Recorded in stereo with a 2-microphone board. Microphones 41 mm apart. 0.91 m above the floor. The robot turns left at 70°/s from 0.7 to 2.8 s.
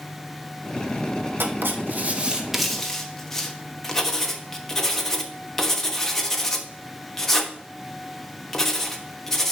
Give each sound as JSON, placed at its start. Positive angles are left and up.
{"t": 1.4, "sound": "writing", "side_deg": -65, "distance_m": 1.1}